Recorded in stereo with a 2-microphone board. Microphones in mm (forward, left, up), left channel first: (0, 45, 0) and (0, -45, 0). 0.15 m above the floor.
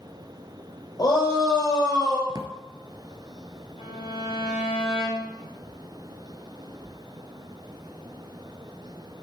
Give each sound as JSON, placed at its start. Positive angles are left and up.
{"t": 1.0, "sound": "a shout", "side_deg": 45, "distance_m": 5.0}
{"t": 2.3, "sound": "a drawer", "side_deg": -45, "distance_m": 1.0}
{"t": 3.8, "sound": "a violin", "side_deg": 80, "distance_m": 4.5}